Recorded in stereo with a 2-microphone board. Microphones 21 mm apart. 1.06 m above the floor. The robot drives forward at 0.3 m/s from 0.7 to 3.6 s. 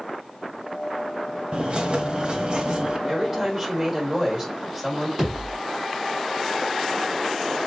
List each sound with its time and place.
1.5 s a bird: 45° right (ahead or behind), 1.4 m; by 3.0 s 35° right (ahead or behind), 1.7 m
3.1 s a woman speaking: 20° right (ahead or behind), 4 m; by 5.1 s 15° right (ahead or behind), 4.5 m
5.2 s a thud: 10° right (ahead or behind), 5 m